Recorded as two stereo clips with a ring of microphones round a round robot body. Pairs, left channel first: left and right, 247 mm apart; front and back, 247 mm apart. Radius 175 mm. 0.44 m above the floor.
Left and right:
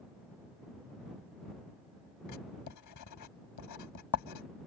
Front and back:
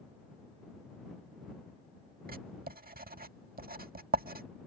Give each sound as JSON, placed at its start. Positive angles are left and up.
{"t": 2.3, "sound": "writing", "azimuth_deg": 120}